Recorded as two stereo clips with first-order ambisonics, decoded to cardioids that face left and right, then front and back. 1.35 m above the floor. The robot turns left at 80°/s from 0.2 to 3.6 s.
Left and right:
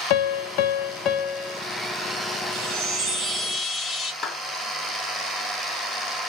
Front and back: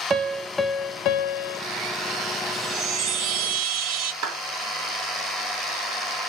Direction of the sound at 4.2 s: 165° left.